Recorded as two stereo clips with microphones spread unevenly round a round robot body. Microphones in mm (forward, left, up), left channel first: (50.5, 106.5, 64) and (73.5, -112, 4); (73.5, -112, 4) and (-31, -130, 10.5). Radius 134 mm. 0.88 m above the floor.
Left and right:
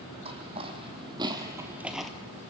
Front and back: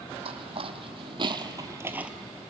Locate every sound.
0.2 s footsteps: 160° right, 2 m; by 2.1 s 135° left, 0.9 m